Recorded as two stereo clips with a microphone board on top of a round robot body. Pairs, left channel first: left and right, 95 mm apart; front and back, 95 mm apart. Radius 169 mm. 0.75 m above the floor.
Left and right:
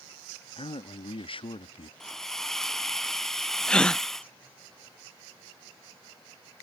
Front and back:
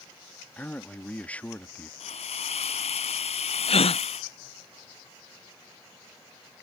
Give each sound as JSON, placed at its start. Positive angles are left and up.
{"t": 0.6, "sound": "a man speaking", "azimuth_deg": 75}
{"t": 2.0, "sound": "a hiss", "azimuth_deg": 5}
{"t": 3.7, "sound": "a gasp", "azimuth_deg": 10}